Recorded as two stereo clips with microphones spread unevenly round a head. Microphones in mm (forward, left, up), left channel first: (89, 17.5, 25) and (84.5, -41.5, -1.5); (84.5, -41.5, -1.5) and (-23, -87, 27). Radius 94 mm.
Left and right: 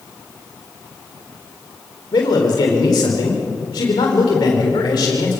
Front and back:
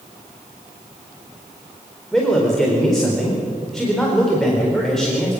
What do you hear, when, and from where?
2.1 s a man speaking: 110° left, 4 m